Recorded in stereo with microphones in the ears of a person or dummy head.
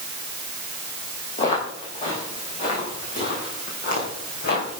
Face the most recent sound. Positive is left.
turn(degrees=55)  # may be behind; listen again after turning